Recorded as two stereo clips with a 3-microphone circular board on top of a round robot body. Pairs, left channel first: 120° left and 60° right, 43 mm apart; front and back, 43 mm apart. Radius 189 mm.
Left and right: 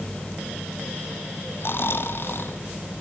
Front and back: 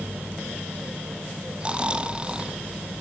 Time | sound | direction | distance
1.6 | snoring | 115° left | 1.6 m